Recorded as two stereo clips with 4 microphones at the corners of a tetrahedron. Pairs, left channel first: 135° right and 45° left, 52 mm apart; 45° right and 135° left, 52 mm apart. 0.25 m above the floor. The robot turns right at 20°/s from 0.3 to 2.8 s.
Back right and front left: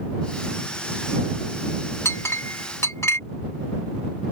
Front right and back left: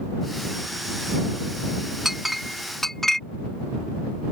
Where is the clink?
145° right; by 3.2 s 130° right.